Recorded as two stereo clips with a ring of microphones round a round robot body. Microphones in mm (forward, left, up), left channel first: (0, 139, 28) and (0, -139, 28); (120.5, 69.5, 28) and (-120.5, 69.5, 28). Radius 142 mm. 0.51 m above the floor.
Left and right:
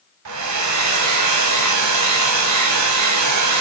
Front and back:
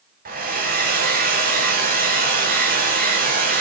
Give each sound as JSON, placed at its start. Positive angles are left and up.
{"t": 0.2, "sound": "a hair dryer", "azimuth_deg": -120, "distance_m": 1.8}